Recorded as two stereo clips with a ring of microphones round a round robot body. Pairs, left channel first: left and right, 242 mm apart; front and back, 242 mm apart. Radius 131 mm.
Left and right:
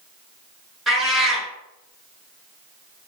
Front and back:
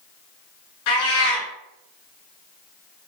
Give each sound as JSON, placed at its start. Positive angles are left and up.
{"t": 0.9, "sound": "a cat meowing", "azimuth_deg": 0, "distance_m": 1.7}